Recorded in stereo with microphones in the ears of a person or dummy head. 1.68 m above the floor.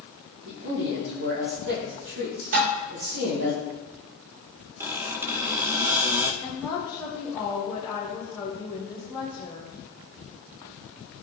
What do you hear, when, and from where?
0.5 s a man speaking: 70° right (ahead or behind), 3.5 m
2.5 s dishes clattering: 50° right (ahead or behind), 4 m
4.8 s a squeak: 10° right (ahead or behind), 1.2 m
6.4 s a woman speaking: 10° right (ahead or behind), 3 m